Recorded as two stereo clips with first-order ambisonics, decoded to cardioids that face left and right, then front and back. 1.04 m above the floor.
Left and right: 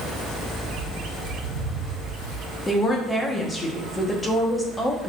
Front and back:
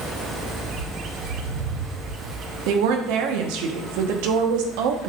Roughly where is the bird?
Behind right.